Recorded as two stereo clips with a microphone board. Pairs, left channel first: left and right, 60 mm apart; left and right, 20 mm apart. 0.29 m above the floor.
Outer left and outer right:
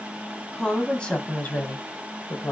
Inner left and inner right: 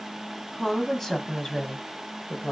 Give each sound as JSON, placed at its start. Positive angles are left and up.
{"t": 0.5, "sound": "a woman speaking", "side_deg": 10, "distance_m": 1.7}